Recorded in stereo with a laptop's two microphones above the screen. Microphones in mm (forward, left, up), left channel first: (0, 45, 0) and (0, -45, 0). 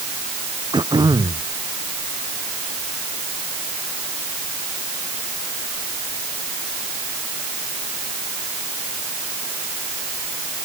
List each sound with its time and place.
0.7 s throat clearing: 55° right (ahead or behind)